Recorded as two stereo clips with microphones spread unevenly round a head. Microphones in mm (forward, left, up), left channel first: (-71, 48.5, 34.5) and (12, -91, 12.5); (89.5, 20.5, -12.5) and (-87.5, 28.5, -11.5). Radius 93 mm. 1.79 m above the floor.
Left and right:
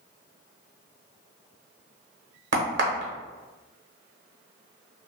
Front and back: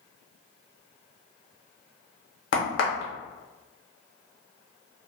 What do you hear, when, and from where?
2.5 s a crack: 35° right, 0.7 m